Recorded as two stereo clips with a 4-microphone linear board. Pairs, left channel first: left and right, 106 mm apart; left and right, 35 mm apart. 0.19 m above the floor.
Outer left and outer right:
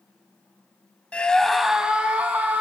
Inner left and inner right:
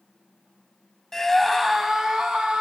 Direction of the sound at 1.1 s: 10° left (ahead or behind).